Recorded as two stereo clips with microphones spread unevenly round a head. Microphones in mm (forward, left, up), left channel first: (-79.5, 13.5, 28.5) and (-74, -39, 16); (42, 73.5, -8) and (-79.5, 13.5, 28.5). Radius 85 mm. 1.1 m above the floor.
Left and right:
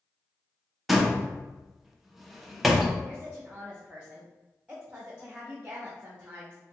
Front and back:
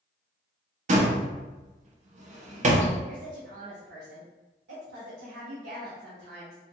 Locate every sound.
0.9 s a door slam: 175° right, 0.7 m
3.1 s a woman speaking: 150° right, 0.8 m